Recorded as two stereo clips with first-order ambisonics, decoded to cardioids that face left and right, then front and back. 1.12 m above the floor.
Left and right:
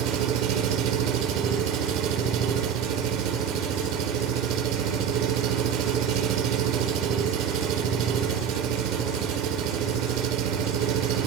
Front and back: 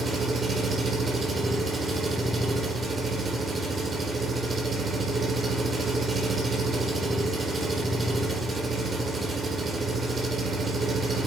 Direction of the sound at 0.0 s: 110° right.